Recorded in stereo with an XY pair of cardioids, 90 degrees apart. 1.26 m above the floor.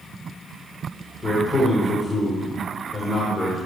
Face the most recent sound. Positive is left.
turn(degrees=20)